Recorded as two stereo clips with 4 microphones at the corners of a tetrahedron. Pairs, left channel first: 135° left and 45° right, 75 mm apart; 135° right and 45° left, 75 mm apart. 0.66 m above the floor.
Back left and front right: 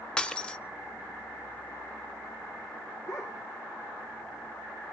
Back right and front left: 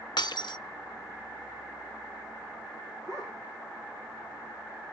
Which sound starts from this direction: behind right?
Breaking glass, at 0.2 s.